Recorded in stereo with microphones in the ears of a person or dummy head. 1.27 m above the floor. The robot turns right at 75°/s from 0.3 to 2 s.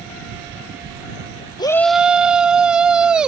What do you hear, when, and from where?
1.6 s a shout: 155° left; by 3.3 s 175° right